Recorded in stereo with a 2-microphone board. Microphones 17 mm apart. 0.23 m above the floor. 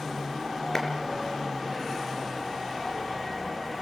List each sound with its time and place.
0.8 s a clap: 25° left (ahead or behind), 3.5 m